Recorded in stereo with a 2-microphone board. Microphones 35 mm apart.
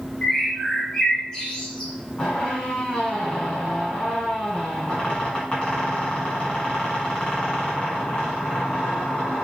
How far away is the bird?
About 1.0 m.